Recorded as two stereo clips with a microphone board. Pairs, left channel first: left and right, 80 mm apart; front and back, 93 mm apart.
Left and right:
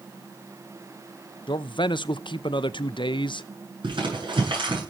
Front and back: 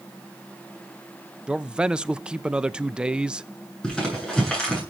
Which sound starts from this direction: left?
A man speaking, at 1.5 s.